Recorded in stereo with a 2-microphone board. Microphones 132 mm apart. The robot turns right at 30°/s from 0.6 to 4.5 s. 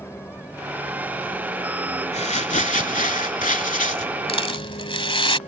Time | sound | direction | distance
0.0 | a vehicle | 20° left (ahead or behind) | ?
2.1 | crumpling | 55° left | ?
4.3 | a rattle | 45° left (ahead or behind) | ?